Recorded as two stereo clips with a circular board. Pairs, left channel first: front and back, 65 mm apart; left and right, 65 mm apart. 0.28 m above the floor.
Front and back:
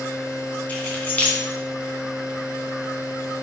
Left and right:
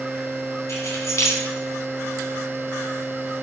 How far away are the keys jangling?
About 2 m.